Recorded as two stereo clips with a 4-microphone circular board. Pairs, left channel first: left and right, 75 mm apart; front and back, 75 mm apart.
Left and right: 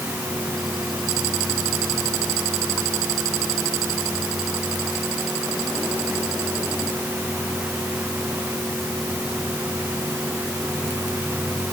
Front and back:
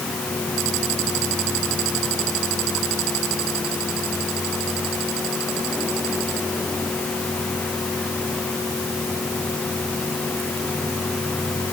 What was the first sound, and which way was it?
Only background noise.